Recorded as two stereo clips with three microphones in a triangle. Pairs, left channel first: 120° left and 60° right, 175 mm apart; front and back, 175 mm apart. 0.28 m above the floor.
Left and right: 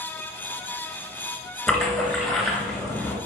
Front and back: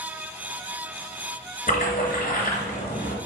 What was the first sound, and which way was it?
A splash, 35° left.